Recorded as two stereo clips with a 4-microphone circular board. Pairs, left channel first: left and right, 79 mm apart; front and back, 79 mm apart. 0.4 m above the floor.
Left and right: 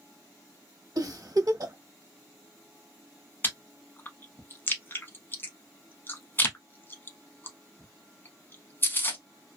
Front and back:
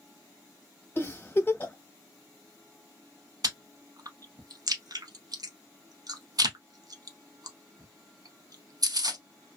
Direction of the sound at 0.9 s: 60° right.